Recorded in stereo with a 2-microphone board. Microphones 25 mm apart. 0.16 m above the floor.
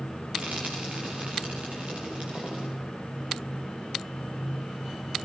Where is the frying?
50° right (ahead or behind), 8.5 m.